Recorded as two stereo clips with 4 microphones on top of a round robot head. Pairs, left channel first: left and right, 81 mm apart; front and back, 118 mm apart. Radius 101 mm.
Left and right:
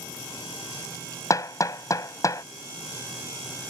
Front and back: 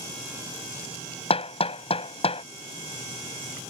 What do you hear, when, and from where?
1.3 s hammering: 40° left